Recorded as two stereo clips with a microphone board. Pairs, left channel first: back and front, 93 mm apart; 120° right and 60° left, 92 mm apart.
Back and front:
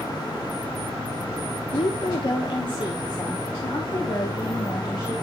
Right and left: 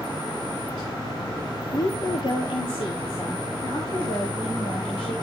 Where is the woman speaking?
165° right, 1.0 m; by 5.1 s 130° right, 4 m.